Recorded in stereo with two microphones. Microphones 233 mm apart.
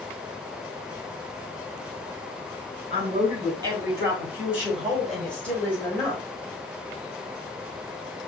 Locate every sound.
2.9 s a man speaking: 25° right (ahead or behind), 2.5 m; by 6.2 s 15° left (ahead or behind), 2.5 m